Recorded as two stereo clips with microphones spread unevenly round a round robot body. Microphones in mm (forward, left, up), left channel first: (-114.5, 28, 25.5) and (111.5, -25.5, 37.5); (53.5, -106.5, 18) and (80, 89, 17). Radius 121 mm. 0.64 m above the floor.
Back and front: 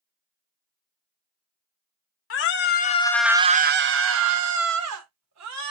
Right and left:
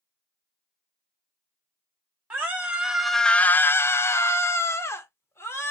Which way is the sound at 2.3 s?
165° left.